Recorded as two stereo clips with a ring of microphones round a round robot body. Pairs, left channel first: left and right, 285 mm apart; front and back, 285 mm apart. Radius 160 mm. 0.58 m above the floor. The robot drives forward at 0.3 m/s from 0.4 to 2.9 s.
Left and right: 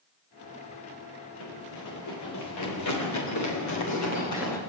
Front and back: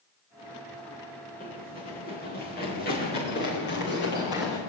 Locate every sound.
1.4 s running footsteps: 65° left, 6 m; by 4.6 s 60° left, 8 m